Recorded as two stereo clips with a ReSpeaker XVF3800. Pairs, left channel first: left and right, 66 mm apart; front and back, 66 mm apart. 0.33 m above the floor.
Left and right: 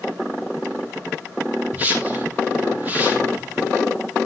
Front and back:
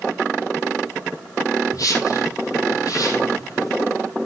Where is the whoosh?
25° right, 3.5 m.